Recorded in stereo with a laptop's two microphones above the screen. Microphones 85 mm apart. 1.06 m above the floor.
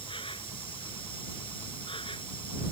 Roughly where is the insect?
Left.